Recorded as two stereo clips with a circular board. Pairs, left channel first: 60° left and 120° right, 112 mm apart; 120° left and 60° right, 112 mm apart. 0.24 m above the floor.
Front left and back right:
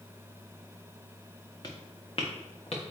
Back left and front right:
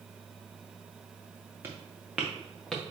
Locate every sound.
1.6 s footsteps: 10° left, 1.1 m; by 2.9 s 40° left, 1.5 m